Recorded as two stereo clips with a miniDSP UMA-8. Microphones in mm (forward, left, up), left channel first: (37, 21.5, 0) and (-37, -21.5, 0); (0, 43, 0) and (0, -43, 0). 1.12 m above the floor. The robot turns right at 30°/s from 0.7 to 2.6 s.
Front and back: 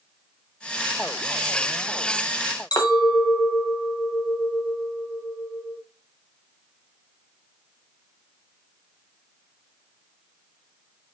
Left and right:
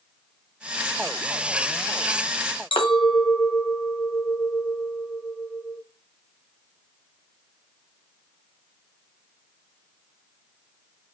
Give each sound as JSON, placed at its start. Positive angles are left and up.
{"t": 2.7, "sound": "a clink", "azimuth_deg": 70, "distance_m": 0.8}